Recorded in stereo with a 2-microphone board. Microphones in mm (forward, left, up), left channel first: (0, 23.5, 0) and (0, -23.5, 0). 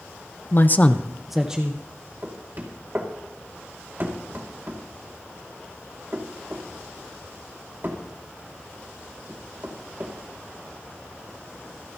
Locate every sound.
0.5 s a man speaking: 50° left (ahead or behind), 0.8 m; by 1.8 s 20° right (ahead or behind), 1.2 m
2.2 s knocking: 45° right (ahead or behind), 2 m